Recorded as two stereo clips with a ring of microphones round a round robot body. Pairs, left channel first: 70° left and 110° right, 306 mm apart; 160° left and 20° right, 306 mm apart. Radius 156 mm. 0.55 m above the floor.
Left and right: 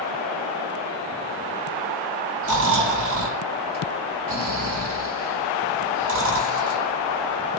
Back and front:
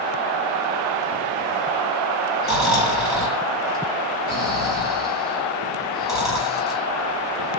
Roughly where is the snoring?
Right.